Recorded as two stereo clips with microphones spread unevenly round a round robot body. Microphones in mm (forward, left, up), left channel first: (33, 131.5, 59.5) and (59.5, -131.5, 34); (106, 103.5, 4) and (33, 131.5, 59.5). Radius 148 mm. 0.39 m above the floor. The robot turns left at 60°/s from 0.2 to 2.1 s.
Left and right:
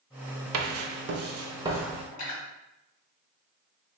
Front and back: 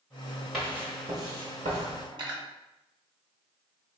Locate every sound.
0.5 s writing: 90° right, 0.6 m; by 2.0 s straight behind, 0.6 m
2.1 s cutlery clinking: 125° left, 1.5 m